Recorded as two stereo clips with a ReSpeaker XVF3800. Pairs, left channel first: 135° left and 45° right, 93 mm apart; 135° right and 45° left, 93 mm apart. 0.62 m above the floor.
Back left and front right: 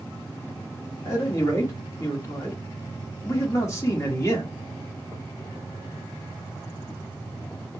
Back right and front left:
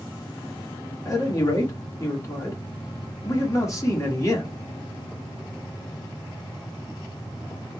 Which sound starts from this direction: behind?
A man speaking, at 1.1 s.